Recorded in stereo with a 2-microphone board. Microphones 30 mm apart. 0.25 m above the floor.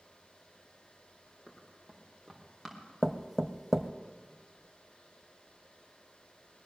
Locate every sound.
1.5 s running footsteps: 5° right (ahead or behind), 4.5 m; by 2.8 s 5° left (ahead or behind), 4.5 m
3.0 s knocking: 10° right (ahead or behind), 0.6 m